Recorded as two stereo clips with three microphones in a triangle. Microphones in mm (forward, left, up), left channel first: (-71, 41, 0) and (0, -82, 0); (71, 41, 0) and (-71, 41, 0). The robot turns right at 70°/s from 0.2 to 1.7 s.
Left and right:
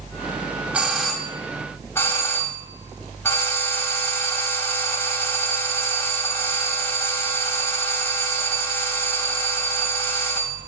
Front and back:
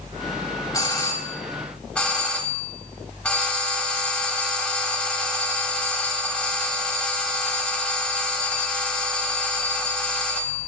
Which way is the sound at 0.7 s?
Straight ahead.